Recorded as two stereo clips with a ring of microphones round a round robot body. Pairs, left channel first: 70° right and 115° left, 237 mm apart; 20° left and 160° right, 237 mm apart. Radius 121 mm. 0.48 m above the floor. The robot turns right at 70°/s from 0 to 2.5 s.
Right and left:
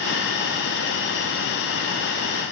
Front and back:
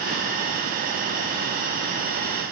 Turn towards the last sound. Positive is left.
No sound to turn to.